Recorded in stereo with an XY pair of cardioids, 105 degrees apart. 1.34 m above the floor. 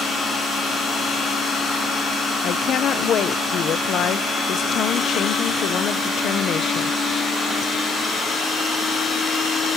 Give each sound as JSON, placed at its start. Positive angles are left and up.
{"t": 2.4, "sound": "a woman speaking", "azimuth_deg": 65, "distance_m": 0.8}